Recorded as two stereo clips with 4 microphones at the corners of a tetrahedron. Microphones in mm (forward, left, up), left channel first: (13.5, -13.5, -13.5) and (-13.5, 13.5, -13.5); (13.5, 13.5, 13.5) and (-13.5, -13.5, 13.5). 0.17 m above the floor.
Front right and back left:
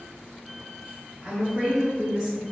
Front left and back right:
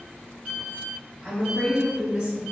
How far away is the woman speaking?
About 1.1 m.